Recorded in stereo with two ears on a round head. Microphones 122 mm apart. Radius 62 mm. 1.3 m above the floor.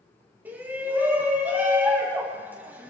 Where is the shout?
15° right (ahead or behind), 3.5 m.